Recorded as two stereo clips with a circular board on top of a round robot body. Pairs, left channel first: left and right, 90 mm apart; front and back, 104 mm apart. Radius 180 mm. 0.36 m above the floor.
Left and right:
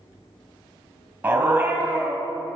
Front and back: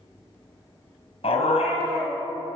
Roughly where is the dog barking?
Ahead.